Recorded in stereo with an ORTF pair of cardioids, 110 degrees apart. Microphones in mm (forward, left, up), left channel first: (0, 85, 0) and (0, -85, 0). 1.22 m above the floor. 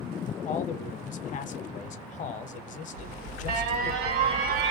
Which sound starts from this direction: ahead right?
An alarm, at 2.9 s.